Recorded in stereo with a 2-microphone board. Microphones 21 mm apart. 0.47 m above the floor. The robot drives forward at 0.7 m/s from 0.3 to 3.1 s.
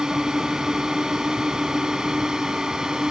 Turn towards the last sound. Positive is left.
turn(degrees=-30)  # may be behind; listen again after turning